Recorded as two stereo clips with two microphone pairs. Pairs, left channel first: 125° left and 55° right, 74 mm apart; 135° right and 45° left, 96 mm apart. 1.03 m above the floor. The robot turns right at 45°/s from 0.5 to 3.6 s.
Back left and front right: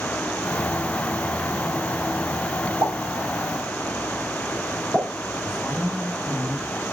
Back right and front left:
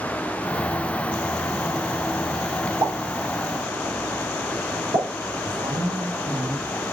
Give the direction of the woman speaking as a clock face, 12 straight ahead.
11 o'clock.